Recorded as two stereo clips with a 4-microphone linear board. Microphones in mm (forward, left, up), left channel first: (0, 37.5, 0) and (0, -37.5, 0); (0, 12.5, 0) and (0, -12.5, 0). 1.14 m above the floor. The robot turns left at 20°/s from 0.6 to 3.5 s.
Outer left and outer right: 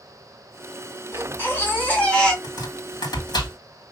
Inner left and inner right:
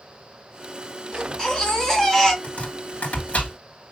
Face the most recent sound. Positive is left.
turn(degrees=80)